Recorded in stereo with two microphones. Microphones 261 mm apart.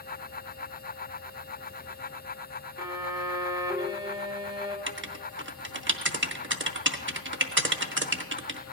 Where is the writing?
50° right (ahead or behind), 0.6 m.